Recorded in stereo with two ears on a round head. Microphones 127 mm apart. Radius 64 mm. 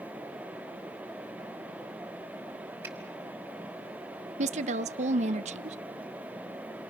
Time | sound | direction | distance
2.8 | a finger snap | 15° right (ahead or behind) | 4 m
4.4 | a woman speaking | 50° right (ahead or behind) | 0.7 m